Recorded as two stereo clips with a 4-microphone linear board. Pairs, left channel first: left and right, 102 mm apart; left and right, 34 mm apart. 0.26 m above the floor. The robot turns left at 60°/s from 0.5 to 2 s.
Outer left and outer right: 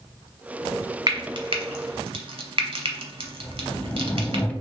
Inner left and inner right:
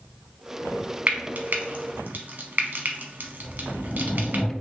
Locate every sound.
1.1 s frying: 40° right (ahead or behind), 0.8 m; by 4.4 s 65° right (ahead or behind), 0.8 m
3.4 s a sliding door: 15° left (ahead or behind), 0.7 m